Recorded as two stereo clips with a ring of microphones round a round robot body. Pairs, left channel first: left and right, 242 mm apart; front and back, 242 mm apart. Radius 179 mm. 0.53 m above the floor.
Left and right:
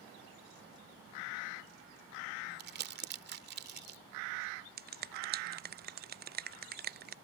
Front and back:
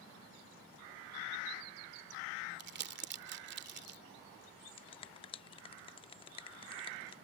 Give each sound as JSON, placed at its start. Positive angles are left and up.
{"t": 2.6, "sound": "crumpling", "azimuth_deg": -135}
{"t": 4.8, "sound": "a finger snap", "azimuth_deg": -60}